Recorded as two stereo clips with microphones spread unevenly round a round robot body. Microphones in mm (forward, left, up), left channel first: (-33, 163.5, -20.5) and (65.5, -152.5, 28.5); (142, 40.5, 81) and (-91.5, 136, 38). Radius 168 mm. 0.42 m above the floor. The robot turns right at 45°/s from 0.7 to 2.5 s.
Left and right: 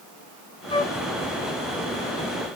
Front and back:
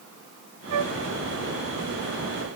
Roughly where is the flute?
Behind.